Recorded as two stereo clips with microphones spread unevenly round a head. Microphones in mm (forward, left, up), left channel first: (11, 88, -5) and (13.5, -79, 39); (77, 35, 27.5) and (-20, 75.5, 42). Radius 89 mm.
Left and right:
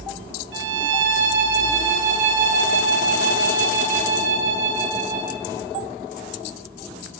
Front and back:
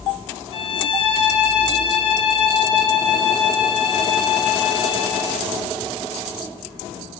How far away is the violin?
About 3.5 m.